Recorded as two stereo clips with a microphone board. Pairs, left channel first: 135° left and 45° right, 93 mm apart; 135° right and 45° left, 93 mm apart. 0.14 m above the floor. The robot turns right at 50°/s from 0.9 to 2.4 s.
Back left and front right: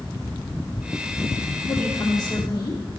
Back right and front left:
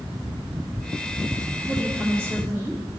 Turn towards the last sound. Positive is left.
turn(degrees=105)